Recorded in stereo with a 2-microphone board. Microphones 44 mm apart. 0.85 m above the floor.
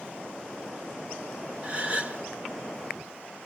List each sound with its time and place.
1.6 s a gasp: 30° right (ahead or behind), 1.2 m